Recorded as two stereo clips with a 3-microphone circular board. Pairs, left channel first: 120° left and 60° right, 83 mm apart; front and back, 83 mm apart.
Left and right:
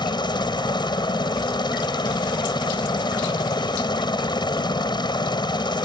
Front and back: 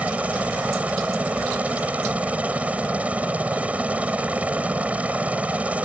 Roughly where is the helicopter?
Left.